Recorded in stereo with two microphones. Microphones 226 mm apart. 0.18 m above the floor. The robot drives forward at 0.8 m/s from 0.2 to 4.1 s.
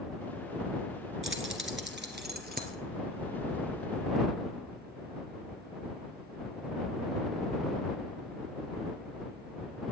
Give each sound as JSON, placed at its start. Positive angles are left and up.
{"t": 1.2, "sound": "keys jangling", "side_deg": -65, "distance_m": 1.8}